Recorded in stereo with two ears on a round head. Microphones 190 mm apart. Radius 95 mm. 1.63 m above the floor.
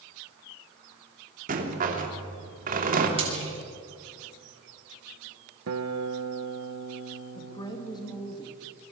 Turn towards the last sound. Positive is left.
turn(degrees=20)  # may be behind; listen again after turning